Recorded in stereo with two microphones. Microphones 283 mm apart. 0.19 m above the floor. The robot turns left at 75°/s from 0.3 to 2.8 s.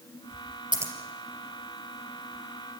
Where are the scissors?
15° right (ahead or behind), 3 m; by 0.9 s centre (ahead or behind), 3 m.